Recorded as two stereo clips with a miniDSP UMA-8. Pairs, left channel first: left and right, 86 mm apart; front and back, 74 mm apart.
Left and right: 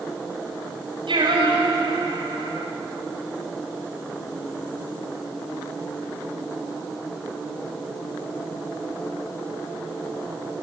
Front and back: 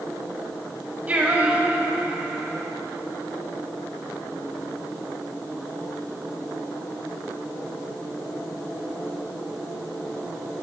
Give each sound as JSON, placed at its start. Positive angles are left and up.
{"t": 1.1, "sound": "singing", "azimuth_deg": -110, "distance_m": 6.0}